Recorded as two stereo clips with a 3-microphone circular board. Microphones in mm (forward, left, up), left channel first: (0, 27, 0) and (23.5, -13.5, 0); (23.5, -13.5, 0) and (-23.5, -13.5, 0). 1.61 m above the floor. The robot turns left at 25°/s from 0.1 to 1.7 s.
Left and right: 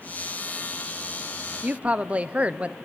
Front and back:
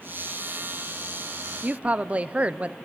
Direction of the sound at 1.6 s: 120° right.